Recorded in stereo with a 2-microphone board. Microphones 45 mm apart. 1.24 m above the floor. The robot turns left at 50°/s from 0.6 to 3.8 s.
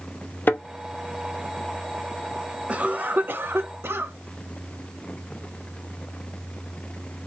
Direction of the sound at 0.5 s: 50° left (ahead or behind).